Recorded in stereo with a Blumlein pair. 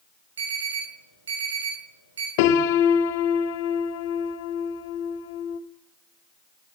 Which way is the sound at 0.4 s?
65° right.